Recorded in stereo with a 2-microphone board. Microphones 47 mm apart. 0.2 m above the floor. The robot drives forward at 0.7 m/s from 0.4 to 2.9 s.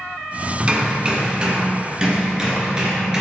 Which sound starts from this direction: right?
Hammering, at 0.6 s.